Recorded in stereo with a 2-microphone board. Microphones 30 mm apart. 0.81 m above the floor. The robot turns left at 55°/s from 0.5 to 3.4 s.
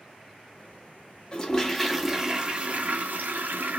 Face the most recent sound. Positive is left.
turn(degrees=-80)